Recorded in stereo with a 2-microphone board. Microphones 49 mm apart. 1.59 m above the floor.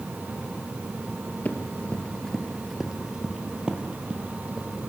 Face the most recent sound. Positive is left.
turn(degrees=-25)  # may be behind; listen again after turning